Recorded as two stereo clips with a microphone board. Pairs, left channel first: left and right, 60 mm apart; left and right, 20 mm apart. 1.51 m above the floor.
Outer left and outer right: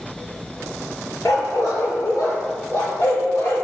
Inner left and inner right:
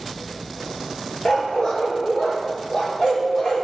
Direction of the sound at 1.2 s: 55° left (ahead or behind).